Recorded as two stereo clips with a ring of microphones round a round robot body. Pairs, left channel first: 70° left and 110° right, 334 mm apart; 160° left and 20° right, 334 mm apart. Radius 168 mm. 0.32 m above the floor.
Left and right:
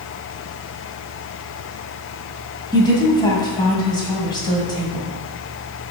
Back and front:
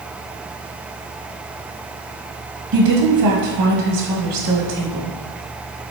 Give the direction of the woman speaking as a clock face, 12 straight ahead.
12 o'clock.